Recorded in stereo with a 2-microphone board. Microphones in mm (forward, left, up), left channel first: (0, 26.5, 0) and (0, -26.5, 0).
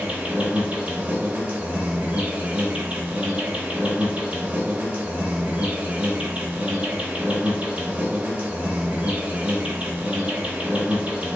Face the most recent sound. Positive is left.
turn(degrees=-20)  # may be behind; listen again after turning